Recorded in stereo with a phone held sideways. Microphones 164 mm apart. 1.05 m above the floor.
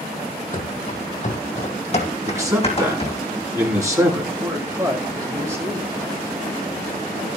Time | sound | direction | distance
0.5 | running footsteps | 50° left (ahead or behind) | 2 m
2.3 | a man speaking | 20° right (ahead or behind) | 8.5 m
4.4 | a man speaking | 15° right (ahead or behind) | 9.5 m